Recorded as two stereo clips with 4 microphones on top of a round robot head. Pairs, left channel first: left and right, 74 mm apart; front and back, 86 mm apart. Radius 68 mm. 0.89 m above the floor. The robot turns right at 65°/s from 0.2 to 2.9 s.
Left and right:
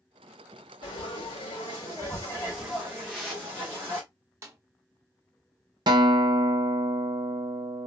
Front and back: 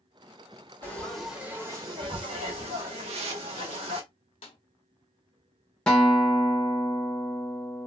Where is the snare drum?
40° right, 0.6 m.